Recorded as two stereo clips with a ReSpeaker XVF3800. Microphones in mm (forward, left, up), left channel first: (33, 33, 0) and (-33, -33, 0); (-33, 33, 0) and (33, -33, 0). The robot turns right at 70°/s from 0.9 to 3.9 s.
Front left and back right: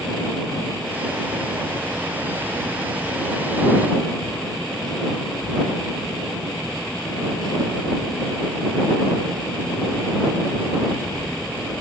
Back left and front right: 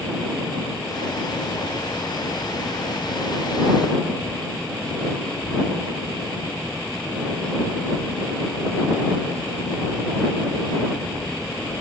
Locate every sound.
Only background noise.